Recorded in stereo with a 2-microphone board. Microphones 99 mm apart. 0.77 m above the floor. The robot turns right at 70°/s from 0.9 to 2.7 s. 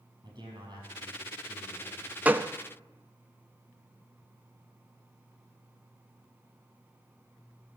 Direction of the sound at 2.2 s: 15° right (ahead or behind).